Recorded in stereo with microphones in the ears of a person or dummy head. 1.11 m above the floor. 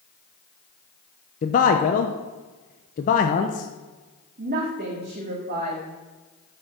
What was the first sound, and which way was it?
A man speaking, 40° left (ahead or behind).